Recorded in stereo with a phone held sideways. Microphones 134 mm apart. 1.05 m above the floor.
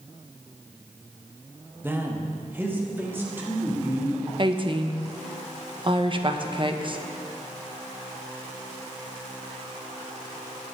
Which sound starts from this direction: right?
A woman speaking, at 4.4 s.